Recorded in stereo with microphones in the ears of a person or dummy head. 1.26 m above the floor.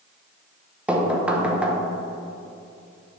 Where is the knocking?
10° right (ahead or behind), 0.9 m.